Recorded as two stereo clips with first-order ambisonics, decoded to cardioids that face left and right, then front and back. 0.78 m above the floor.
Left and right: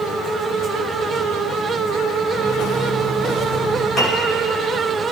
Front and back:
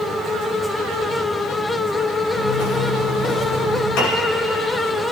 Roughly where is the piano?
Ahead left.